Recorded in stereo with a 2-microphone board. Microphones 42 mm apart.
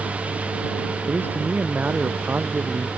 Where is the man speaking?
45° right (ahead or behind).